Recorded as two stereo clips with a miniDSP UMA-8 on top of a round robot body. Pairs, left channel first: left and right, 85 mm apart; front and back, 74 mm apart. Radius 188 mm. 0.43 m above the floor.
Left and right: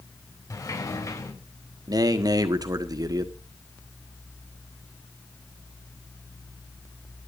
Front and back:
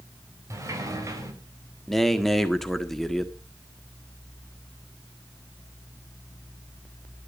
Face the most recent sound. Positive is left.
turn(degrees=-85)